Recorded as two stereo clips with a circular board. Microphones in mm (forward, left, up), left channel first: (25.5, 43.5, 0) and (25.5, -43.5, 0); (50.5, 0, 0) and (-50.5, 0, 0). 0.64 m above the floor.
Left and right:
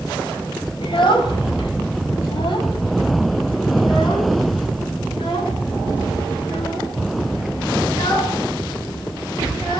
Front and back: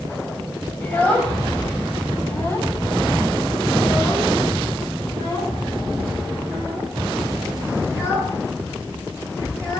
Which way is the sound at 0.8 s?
75° left.